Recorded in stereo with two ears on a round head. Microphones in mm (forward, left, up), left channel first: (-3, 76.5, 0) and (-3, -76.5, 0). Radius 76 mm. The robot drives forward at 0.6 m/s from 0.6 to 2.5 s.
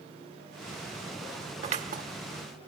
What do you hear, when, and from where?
1.6 s scissors: 40° right (ahead or behind), 0.8 m; by 2.0 s 50° right (ahead or behind), 0.6 m